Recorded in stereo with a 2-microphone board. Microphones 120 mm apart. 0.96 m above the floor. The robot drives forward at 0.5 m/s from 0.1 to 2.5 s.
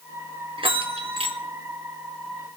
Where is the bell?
45° right (ahead or behind), 0.8 m; by 1.4 s 50° right (ahead or behind), 0.7 m.